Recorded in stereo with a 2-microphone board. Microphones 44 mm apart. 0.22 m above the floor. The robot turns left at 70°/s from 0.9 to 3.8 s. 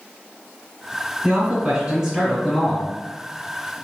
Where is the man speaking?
100° right, 1.4 m; by 2.9 s 145° left, 1.4 m.